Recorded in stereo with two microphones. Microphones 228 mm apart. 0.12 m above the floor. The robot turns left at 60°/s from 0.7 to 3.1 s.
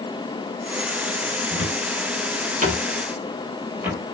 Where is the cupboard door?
65° right (ahead or behind), 2.5 m; by 4.2 s 10° right (ahead or behind), 2.5 m.